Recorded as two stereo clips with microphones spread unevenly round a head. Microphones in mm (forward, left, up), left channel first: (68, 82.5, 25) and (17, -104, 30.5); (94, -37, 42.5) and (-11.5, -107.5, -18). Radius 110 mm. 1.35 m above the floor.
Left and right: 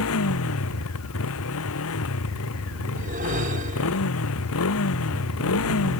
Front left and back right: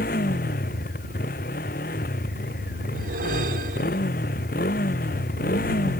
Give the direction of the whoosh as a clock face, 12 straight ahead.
5 o'clock.